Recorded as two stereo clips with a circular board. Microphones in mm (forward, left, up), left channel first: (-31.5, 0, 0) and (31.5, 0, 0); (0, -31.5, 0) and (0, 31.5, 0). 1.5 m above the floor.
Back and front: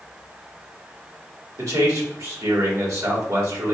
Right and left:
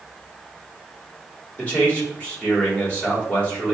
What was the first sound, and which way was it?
A man speaking, 25° right.